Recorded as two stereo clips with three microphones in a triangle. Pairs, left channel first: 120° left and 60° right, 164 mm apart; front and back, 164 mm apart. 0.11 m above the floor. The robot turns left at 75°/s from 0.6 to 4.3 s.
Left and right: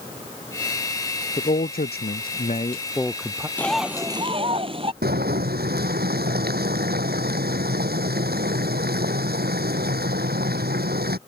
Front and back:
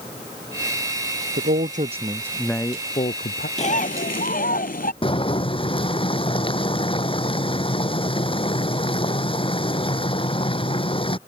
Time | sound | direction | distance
1.4 | a man speaking | 170° left | ?
3.6 | a bird | 45° left | ?
5.0 | boiling | 55° right | ?